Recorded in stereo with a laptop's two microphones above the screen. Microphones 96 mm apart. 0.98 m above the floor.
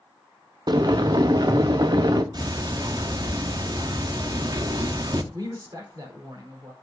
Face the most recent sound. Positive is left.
turn(degrees=-40)  # may be behind; listen again after turning